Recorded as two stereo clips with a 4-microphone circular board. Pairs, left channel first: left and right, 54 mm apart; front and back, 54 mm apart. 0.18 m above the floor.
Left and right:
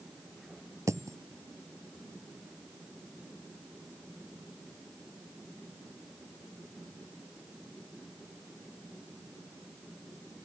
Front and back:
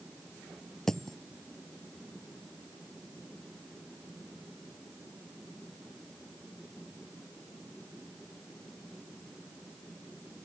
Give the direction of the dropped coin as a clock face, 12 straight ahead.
3 o'clock.